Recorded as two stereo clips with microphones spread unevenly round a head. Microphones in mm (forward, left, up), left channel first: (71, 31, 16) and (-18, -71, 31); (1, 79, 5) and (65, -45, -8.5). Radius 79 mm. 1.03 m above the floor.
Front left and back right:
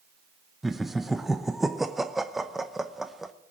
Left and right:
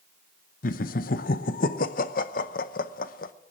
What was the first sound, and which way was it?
Laughter, 135° left.